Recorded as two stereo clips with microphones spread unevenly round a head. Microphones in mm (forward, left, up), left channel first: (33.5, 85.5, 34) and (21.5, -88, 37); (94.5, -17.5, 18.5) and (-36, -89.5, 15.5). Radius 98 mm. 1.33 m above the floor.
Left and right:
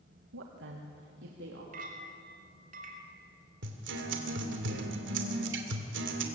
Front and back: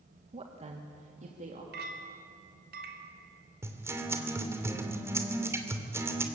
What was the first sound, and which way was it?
A woman speaking, 105° right.